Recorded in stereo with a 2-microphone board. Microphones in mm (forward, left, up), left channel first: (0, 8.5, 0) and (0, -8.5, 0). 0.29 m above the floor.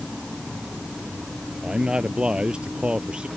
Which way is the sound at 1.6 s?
75° right (ahead or behind).